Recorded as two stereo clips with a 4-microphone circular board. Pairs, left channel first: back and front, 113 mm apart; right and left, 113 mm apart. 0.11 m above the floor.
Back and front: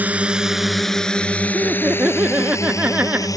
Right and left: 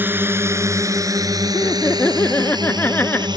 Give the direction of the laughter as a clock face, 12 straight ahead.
2 o'clock.